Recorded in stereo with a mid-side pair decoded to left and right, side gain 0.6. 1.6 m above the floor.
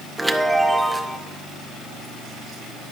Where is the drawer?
No drawer in this recording.